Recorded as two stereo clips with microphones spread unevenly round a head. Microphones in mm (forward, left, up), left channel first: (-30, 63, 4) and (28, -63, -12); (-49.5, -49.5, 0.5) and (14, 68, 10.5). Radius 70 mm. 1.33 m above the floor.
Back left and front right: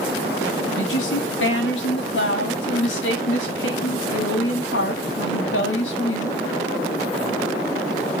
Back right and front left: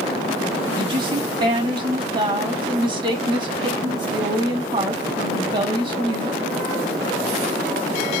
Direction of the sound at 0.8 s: 115° left.